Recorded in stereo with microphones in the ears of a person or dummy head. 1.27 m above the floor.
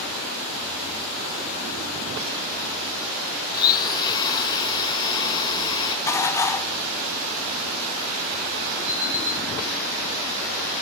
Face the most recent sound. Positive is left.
turn(degrees=-65)  # may be behind; listen again after turning